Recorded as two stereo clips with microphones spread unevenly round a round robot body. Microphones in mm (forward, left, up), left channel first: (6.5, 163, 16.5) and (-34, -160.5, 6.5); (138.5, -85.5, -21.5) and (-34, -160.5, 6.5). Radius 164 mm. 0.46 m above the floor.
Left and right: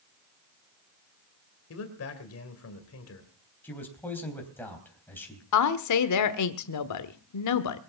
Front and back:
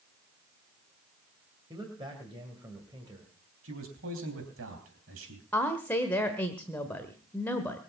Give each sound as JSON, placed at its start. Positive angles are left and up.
{"t": 1.7, "sound": "a man speaking", "azimuth_deg": 125, "distance_m": 2.5}
{"t": 3.6, "sound": "a man speaking", "azimuth_deg": 165, "distance_m": 3.5}
{"t": 5.5, "sound": "a woman speaking", "azimuth_deg": 100, "distance_m": 1.1}